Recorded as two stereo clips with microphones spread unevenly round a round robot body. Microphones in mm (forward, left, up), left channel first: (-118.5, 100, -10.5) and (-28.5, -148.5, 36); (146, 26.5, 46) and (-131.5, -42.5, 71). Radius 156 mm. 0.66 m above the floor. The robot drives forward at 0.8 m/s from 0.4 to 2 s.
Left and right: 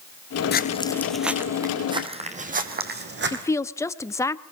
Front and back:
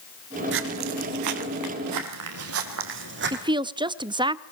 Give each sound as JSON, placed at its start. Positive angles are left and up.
{"t": 0.5, "sound": "footsteps", "azimuth_deg": 160, "distance_m": 0.8}
{"t": 3.3, "sound": "a woman speaking", "azimuth_deg": 130, "distance_m": 0.6}